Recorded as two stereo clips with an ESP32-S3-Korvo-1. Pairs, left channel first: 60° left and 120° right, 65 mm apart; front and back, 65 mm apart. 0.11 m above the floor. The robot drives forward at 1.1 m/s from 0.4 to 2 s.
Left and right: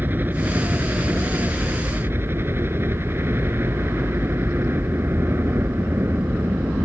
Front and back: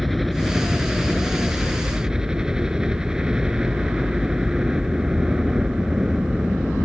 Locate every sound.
0.0 s a helicopter: 90° right; by 6.9 s 105° right